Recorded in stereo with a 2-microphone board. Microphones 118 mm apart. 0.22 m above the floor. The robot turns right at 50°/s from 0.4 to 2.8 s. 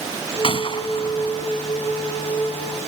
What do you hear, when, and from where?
0.4 s a gunshot: 50° left (ahead or behind); by 1.5 s 25° left (ahead or behind)